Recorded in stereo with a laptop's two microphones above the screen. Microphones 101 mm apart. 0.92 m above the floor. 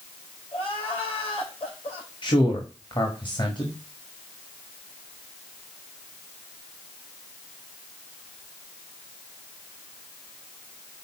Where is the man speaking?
50° left (ahead or behind), 1.7 m.